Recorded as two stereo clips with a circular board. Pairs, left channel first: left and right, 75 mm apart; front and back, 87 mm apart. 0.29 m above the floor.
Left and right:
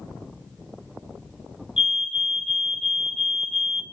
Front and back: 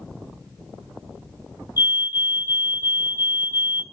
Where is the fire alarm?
160° right, 2.5 m.